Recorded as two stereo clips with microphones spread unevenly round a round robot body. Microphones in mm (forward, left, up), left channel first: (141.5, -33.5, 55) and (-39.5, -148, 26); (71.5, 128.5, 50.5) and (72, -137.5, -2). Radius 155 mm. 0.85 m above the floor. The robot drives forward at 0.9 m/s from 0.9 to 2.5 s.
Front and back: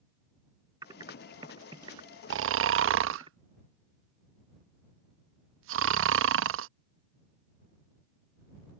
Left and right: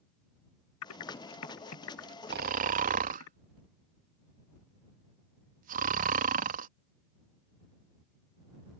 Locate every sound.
0.8 s typing on a keyboard: 135° left; by 3.3 s 140° left
2.3 s snoring: 135° right; by 6.7 s 145° right